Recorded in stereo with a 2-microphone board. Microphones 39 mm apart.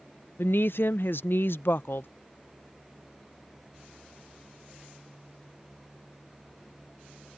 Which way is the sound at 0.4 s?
75° left (ahead or behind).